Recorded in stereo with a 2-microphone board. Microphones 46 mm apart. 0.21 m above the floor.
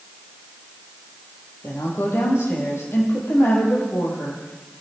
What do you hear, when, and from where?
1.6 s a woman speaking: 65° left (ahead or behind), 6.5 m